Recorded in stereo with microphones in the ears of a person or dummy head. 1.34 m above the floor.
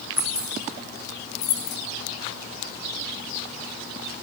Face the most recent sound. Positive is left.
turn(degrees=55)  # may be behind; listen again after turning